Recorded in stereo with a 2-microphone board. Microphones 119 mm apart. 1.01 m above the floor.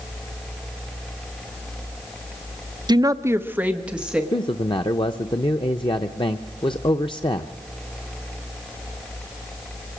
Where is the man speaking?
45° left (ahead or behind), 0.6 m.